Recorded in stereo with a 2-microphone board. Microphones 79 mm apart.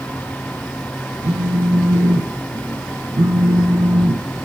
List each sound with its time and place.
1.2 s a phone buzzing: 60° right (ahead or behind), 0.5 m